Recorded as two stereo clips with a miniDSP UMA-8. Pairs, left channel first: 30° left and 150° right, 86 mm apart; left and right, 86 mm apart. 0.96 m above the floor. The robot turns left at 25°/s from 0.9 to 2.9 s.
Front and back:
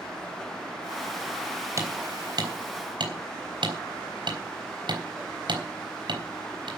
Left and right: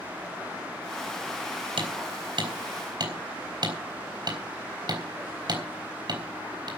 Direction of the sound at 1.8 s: 95° right.